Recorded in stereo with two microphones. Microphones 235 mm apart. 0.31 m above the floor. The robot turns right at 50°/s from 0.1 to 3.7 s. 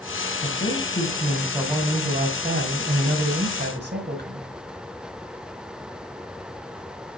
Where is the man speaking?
135° left, 2 m; by 4.5 s 60° right, 2 m.